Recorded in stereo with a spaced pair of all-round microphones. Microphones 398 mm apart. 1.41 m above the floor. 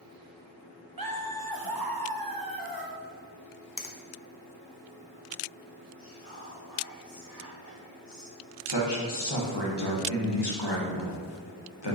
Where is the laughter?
60° right (ahead or behind), 1.0 m.